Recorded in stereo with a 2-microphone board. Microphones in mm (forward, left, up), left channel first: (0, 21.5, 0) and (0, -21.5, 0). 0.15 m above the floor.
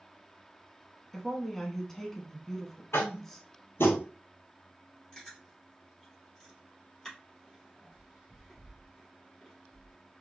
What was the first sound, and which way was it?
A woman speaking, 10° left (ahead or behind).